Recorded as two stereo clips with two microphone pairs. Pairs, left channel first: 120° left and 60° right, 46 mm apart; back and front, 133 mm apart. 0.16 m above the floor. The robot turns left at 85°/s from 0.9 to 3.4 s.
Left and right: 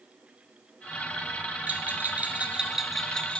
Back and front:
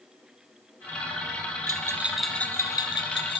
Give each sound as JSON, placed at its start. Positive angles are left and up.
{"t": 1.7, "sound": "a bell", "azimuth_deg": -40, "distance_m": 0.7}